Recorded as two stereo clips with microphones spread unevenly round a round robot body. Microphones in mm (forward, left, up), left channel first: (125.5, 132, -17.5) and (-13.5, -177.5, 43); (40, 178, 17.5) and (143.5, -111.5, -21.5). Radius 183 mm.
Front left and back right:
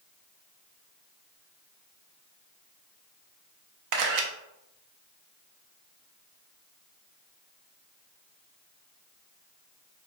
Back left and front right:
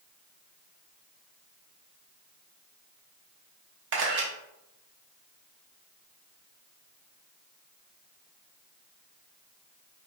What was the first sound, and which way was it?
A camera shutter, 95° right.